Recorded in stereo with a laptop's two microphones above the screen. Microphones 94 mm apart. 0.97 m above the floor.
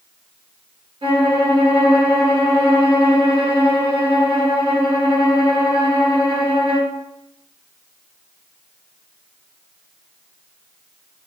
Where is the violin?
70° right (ahead or behind), 0.8 m.